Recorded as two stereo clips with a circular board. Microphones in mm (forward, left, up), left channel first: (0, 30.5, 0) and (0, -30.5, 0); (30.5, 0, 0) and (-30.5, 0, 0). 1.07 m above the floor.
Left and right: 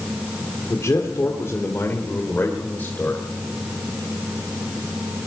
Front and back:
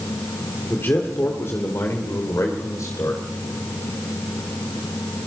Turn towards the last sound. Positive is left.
turn(degrees=30)